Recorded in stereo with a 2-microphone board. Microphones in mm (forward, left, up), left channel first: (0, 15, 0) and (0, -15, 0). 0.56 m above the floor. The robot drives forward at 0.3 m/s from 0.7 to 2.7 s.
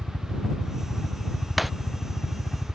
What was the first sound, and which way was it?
A helicopter, 25° left (ahead or behind).